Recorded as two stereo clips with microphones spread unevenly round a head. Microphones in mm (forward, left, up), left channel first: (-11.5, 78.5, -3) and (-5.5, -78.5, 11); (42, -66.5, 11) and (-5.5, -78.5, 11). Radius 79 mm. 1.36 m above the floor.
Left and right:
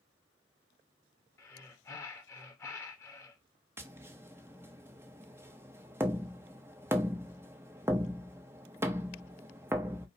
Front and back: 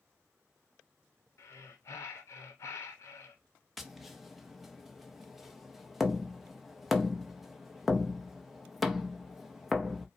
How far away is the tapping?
About 0.6 m.